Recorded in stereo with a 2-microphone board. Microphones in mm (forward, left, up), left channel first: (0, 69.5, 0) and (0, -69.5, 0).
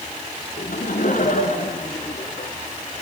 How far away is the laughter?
About 3.5 m.